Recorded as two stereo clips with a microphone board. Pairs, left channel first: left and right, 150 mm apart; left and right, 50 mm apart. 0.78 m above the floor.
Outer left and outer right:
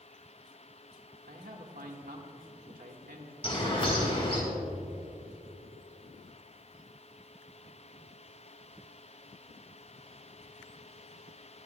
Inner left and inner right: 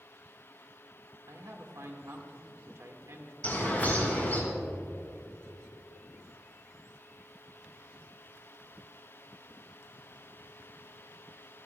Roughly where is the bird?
Left.